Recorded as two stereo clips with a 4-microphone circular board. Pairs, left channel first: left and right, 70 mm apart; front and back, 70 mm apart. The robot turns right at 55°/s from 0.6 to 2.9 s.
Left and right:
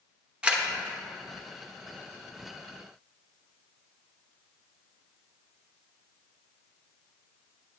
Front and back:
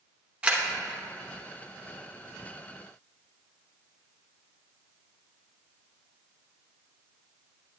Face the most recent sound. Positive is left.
turn(degrees=-10)